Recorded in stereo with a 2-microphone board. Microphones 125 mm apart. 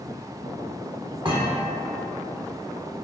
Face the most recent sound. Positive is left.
turn(degrees=-40)  # may be behind; listen again after turning